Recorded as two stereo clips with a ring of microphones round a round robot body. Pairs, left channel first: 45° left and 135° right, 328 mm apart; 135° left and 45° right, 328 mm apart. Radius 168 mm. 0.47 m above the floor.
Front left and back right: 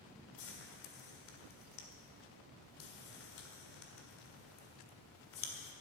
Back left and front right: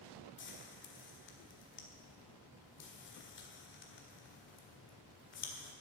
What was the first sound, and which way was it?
Frying, 85° left.